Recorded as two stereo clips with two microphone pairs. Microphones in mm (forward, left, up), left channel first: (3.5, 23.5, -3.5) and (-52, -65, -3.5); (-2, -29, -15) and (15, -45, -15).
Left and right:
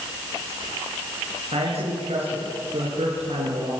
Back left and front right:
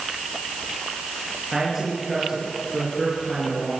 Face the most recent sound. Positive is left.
turn(degrees=-120)